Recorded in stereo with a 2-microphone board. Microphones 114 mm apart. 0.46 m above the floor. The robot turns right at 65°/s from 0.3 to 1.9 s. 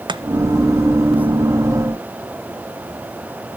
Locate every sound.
0.1 s chopping: 40° right (ahead or behind), 0.7 m